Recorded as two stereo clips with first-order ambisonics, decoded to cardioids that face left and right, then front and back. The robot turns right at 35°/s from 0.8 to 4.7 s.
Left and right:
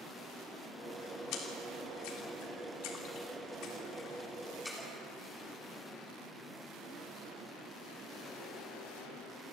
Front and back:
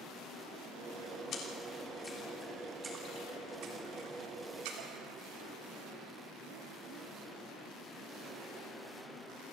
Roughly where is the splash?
Ahead left.